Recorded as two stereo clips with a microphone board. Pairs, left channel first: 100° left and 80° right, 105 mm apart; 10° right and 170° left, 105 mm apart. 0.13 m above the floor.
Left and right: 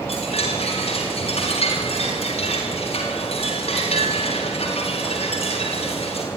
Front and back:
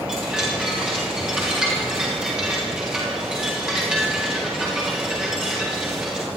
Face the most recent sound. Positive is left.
turn(degrees=85)